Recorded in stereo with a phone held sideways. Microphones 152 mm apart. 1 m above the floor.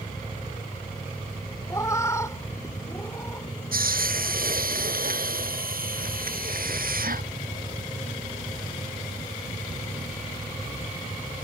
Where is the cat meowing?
20° left (ahead or behind); by 3.5 s 15° left (ahead or behind).